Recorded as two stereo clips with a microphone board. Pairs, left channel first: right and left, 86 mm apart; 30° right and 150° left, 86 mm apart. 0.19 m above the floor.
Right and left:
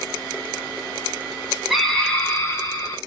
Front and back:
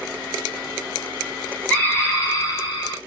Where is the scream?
5° left, 1.0 m; by 3.0 s 55° right, 1.9 m.